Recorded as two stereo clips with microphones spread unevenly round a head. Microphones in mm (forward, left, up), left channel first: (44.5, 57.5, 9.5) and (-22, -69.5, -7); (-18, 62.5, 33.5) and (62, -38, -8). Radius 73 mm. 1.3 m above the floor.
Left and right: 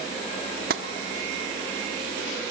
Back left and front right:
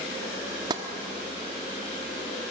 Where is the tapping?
125° right, 1.1 m.